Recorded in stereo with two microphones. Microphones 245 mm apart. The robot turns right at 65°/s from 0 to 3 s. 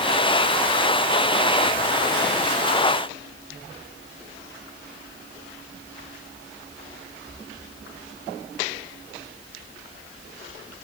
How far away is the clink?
I don't hear a clink.